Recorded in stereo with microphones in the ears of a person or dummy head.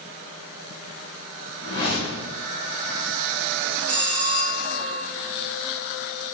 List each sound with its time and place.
1.6 s a whoosh: 25° left (ahead or behind), 1.3 m
3.9 s a bell: 40° right (ahead or behind), 0.7 m